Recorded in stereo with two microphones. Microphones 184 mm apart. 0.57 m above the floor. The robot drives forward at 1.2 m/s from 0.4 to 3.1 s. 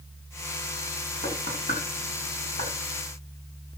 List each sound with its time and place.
1.2 s knocking: 45° left (ahead or behind), 5 m; by 2.7 s 60° left (ahead or behind), 4 m